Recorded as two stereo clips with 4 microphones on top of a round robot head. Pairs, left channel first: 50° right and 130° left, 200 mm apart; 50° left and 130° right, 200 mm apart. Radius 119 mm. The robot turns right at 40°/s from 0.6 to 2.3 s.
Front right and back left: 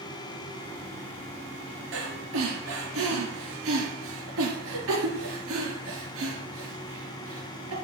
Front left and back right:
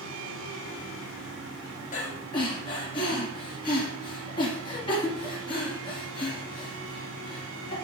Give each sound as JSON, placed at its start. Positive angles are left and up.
{"t": 1.9, "sound": "breathing", "azimuth_deg": 100, "distance_m": 3.0}